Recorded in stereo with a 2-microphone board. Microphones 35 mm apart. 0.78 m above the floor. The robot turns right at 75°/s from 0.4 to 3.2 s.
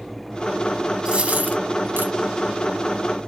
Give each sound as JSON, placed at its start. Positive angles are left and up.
{"t": 1.1, "sound": "a dropped coin", "side_deg": -30, "distance_m": 0.8}